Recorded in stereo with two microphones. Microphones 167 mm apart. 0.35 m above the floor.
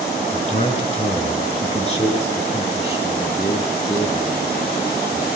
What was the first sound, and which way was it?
A man speaking, 40° left (ahead or behind).